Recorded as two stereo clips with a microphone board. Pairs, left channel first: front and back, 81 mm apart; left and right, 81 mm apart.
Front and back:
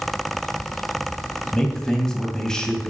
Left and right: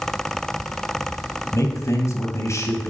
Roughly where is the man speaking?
Left.